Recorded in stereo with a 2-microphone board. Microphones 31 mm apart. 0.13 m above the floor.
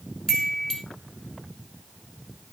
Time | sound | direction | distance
0.3 | a chime | 15° left (ahead or behind) | 0.8 m